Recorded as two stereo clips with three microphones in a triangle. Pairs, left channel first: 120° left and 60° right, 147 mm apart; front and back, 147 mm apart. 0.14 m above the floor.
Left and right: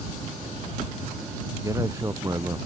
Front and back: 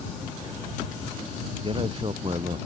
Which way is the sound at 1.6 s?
130° right.